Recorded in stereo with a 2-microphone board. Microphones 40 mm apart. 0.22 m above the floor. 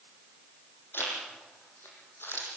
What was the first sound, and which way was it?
A zipper, 70° left (ahead or behind).